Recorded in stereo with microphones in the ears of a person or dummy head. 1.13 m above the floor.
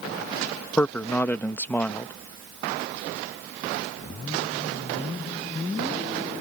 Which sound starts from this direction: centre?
A man speaking, at 0.8 s.